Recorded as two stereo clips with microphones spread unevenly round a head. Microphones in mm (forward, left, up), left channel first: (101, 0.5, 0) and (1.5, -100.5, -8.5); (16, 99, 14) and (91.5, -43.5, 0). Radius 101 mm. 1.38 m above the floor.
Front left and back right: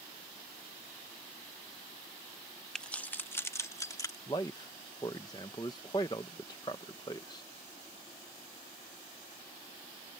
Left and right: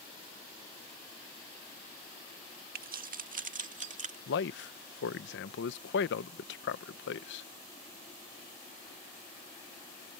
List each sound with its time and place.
2.8 s keys jangling: 40° right; by 4.2 s 20° right
4.3 s a man speaking: 120° left